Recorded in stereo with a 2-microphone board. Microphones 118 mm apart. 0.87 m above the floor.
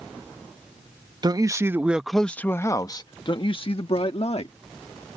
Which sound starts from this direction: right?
A man speaking, at 1.2 s.